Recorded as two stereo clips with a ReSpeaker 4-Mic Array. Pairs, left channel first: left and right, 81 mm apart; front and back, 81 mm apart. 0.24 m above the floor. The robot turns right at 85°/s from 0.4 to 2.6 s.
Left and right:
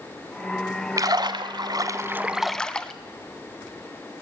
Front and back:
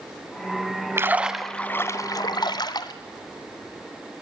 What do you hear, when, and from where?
1.0 s a splash: 130° right, 1.1 m; by 2.9 s 10° left, 1.1 m